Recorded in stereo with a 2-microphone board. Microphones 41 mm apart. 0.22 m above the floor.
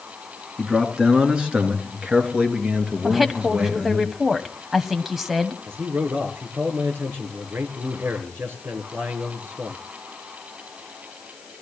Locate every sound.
0.6 s a man speaking: 20° right (ahead or behind), 3 m; by 4.0 s 40° right (ahead or behind), 4.5 m
3.0 s a woman speaking: 5° right (ahead or behind), 1.2 m
5.7 s a man speaking: 70° right (ahead or behind), 4 m